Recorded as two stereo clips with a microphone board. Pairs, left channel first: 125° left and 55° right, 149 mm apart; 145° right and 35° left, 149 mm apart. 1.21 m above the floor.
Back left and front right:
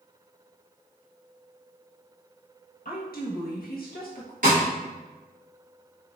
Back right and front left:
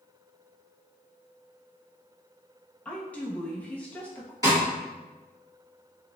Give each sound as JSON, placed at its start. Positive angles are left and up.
{"t": 2.9, "sound": "a woman speaking", "azimuth_deg": 135, "distance_m": 1.1}
{"t": 4.4, "sound": "a snare drum", "azimuth_deg": -30, "distance_m": 2.0}